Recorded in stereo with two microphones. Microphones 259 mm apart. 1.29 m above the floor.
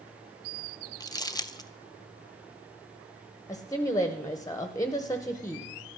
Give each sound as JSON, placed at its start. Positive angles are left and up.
{"t": 1.0, "sound": "crumpling", "side_deg": 15, "distance_m": 0.6}
{"t": 3.5, "sound": "a woman speaking", "side_deg": 15, "distance_m": 0.9}